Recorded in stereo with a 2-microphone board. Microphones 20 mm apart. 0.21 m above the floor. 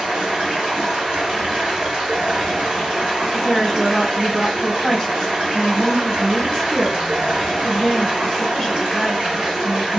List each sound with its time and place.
0.0 s running water: 65° right (ahead or behind), 1.7 m
3.3 s a woman speaking: 15° left (ahead or behind), 1.1 m